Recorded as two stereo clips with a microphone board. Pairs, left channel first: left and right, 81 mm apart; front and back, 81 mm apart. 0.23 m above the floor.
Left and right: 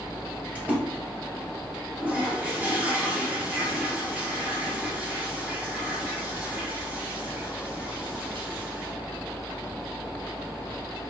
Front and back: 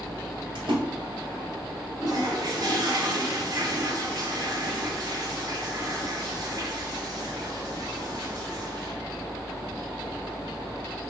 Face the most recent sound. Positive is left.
turn(degrees=-160)